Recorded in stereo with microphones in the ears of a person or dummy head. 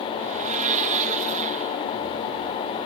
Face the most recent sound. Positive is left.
turn(degrees=-35)  # may be behind; listen again after turning